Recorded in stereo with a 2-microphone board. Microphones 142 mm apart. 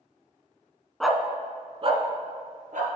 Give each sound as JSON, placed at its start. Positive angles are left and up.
{"t": 1.0, "sound": "a dog barking", "side_deg": 5, "distance_m": 0.6}